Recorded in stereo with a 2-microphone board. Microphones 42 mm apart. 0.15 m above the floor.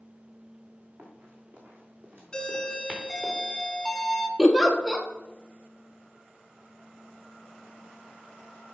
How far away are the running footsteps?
About 3.5 m.